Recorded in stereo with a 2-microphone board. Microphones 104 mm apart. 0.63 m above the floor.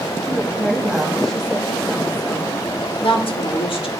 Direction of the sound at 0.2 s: 5° left (ahead or behind).